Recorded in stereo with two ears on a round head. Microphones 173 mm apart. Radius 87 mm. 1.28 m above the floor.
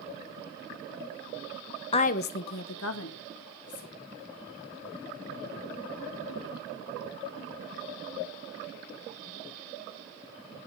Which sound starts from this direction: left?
A woman speaking, at 1.9 s.